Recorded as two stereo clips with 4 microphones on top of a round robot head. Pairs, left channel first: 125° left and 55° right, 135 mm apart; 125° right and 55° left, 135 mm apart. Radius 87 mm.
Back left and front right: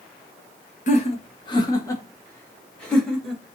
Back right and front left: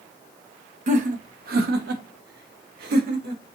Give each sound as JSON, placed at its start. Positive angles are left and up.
{"t": 0.9, "sound": "laughter", "azimuth_deg": 90, "distance_m": 0.9}